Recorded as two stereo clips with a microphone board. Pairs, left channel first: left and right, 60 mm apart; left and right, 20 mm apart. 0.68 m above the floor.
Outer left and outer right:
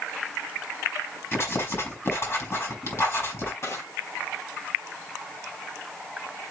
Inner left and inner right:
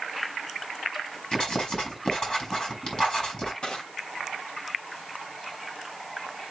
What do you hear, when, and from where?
1.3 s writing: 45° left (ahead or behind), 4.5 m
3.6 s crushing: 55° left (ahead or behind), 2 m